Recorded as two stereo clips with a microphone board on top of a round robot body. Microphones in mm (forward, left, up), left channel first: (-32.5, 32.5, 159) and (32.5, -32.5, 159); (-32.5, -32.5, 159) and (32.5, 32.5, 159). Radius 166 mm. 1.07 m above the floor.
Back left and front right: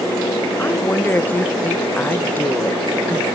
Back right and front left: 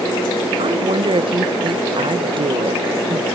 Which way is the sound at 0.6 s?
65° left.